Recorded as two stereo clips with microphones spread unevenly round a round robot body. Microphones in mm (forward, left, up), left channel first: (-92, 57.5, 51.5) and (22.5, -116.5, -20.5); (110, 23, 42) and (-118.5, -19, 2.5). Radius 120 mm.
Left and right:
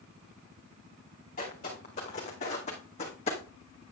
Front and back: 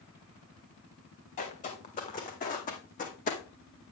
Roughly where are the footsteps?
Ahead left.